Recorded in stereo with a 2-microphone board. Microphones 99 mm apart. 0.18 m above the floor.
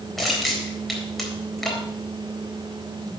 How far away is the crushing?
About 4 m.